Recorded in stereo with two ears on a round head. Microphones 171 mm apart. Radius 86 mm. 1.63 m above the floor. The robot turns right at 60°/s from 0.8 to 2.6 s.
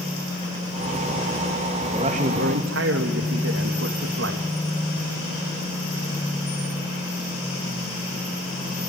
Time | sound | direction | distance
1.9 | a man speaking | 150° right | 2.5 m